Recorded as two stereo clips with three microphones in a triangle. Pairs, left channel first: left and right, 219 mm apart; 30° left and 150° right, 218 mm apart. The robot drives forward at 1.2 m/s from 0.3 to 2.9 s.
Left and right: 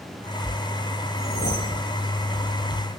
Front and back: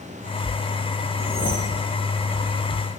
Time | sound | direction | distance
1.2 | a whoosh | 95° right | 6 m